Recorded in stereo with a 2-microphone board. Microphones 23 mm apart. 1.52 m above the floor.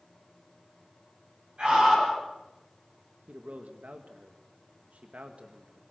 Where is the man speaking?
85° right, 1.8 m.